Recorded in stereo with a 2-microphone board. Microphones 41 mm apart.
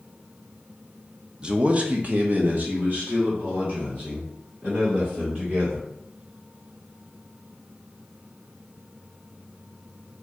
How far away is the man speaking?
About 0.5 m.